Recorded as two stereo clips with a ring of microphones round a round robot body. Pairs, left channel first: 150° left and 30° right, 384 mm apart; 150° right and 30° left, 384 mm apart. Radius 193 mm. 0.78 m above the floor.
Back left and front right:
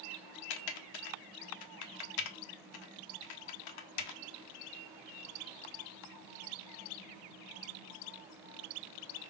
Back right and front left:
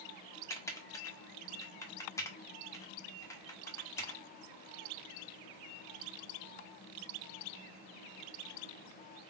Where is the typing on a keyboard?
130° left, 0.7 m.